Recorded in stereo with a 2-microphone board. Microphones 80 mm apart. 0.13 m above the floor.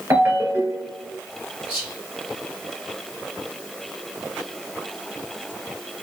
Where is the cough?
I don't hear a cough.